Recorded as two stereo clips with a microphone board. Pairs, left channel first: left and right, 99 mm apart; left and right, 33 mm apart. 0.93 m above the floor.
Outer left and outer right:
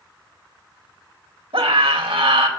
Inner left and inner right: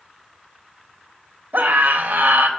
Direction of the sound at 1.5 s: 70° right (ahead or behind).